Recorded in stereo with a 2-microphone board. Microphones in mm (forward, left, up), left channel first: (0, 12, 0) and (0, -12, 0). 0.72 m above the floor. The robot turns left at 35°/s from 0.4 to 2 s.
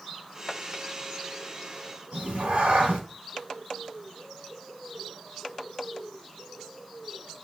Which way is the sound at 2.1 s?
55° right (ahead or behind).